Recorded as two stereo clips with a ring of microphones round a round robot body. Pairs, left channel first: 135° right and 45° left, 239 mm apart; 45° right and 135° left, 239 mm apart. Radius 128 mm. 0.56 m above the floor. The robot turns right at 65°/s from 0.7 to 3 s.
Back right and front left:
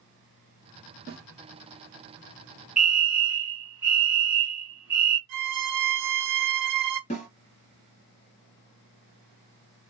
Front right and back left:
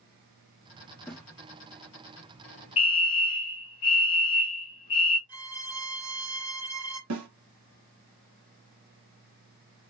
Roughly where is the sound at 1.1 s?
Ahead left.